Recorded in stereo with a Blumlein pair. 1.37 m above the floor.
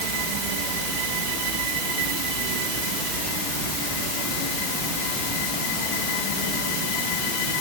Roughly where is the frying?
No frying in this recording.